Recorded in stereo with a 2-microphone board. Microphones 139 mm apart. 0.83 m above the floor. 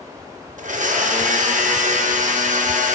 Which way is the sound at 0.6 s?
70° right (ahead or behind).